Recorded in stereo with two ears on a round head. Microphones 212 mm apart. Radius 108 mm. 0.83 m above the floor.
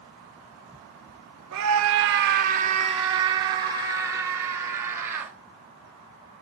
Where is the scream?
60° right (ahead or behind), 0.9 m; by 5.3 s 10° right (ahead or behind), 4 m.